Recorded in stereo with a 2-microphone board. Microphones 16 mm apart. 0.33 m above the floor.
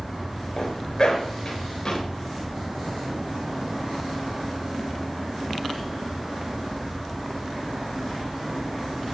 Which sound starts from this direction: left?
A zipper, at 0.6 s.